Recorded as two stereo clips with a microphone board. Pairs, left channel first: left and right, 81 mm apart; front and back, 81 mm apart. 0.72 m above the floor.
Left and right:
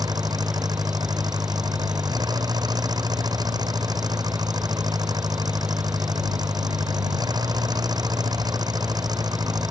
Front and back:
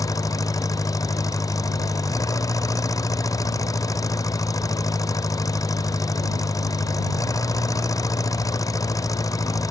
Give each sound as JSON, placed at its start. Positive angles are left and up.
{"t": 0.0, "sound": "an engine running", "azimuth_deg": -50}